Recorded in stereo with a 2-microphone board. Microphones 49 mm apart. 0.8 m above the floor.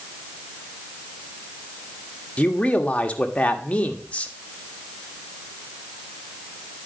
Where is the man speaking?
25° left (ahead or behind), 1.5 m.